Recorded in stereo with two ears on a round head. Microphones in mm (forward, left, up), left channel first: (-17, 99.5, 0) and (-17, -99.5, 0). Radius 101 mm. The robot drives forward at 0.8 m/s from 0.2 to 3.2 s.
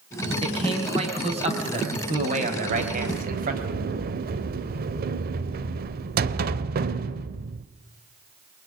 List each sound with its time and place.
0.4 s a man speaking: 25° right (ahead or behind), 5.5 m; by 3.7 s 40° right (ahead or behind), 4 m
2.7 s a sliding door: 65° right (ahead or behind), 0.9 m; by 7.7 s 45° right (ahead or behind), 1.1 m